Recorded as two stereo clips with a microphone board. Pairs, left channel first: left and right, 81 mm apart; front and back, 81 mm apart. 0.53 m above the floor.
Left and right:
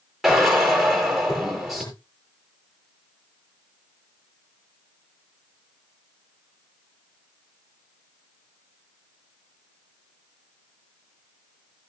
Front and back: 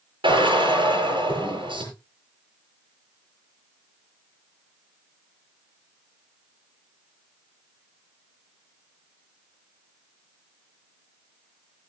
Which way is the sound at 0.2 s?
175° right.